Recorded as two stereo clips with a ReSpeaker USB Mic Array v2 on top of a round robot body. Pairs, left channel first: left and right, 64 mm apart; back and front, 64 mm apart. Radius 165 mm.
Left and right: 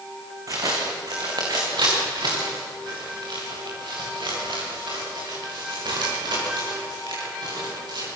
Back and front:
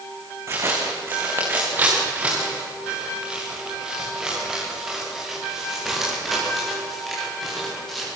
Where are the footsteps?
50° right, 5 m; by 8.1 s 95° right, 13.5 m.